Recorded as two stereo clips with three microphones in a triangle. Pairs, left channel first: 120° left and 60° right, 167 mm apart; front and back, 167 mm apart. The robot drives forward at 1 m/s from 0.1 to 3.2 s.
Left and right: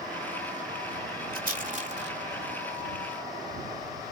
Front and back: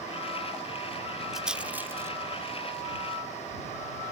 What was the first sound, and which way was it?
A rattle, 90° right.